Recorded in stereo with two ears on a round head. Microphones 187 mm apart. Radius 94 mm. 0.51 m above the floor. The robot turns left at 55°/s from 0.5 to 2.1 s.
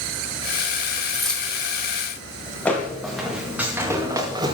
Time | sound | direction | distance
1.1 | keys jangling | 5° right (ahead or behind) | 3.5 m
2.6 | footsteps | 10° left (ahead or behind) | 4.5 m